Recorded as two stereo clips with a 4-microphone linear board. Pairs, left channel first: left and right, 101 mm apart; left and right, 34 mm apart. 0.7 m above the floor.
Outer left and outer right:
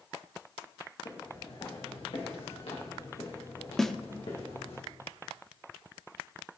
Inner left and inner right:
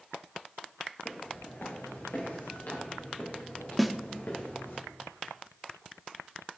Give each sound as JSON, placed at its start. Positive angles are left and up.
{"t": 1.1, "sound": "footsteps", "side_deg": 55, "distance_m": 4.0}
{"t": 3.8, "sound": "a snare drum", "side_deg": 5, "distance_m": 0.7}